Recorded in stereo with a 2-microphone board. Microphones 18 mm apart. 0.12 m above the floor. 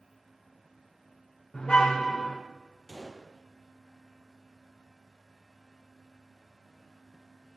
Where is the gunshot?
10° left (ahead or behind), 3 m.